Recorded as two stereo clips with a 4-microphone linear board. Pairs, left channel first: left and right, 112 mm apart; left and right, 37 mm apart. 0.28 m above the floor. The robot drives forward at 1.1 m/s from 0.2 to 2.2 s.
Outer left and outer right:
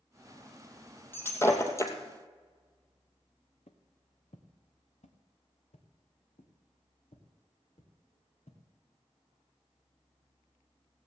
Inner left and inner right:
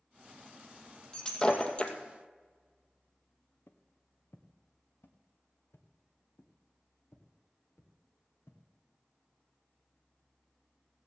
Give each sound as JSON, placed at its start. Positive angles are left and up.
{"t": 1.1, "sound": "breaking glass", "side_deg": 20, "distance_m": 2.5}
{"t": 3.7, "sound": "footsteps", "side_deg": 75, "distance_m": 1.6}